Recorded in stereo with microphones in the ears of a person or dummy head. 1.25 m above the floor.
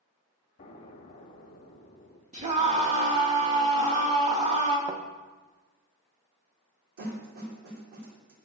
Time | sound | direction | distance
0.6 | an explosion | 35° left (ahead or behind) | 1.2 m
2.3 | a scream | 25° right (ahead or behind) | 2.5 m
4.9 | a thud | 20° right (ahead or behind) | 1.0 m
7.0 | a snare drum | 70° right (ahead or behind) | 3 m